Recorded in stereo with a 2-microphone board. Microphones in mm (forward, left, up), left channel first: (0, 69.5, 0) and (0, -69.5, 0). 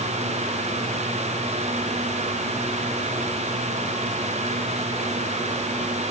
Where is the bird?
No bird in this recording.